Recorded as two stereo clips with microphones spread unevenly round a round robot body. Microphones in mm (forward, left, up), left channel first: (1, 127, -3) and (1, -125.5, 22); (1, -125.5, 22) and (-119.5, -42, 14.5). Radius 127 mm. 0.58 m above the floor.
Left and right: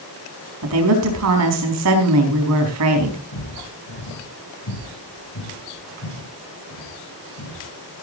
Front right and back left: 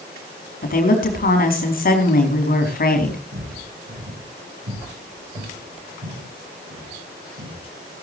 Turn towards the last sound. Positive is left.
turn(degrees=130)